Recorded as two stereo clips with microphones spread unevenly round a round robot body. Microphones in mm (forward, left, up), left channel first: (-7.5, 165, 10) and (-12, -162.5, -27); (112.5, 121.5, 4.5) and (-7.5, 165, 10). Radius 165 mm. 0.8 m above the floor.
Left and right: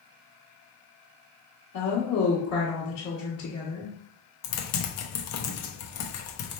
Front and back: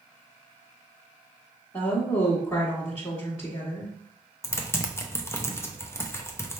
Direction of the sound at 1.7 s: 45° left.